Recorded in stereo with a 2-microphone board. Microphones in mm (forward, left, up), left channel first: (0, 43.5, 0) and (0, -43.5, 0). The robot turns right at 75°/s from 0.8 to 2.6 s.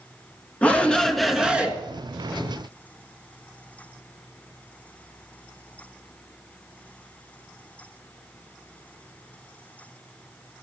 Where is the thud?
No thud in this recording.